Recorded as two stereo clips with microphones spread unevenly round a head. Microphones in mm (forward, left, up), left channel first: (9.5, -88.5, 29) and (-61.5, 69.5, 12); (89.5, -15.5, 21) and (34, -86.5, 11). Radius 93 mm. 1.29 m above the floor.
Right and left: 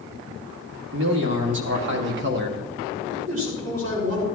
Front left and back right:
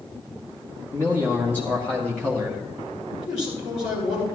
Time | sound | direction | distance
0.9 | a man speaking | 130° left | 2.5 m
3.1 | a man speaking | 105° left | 5.5 m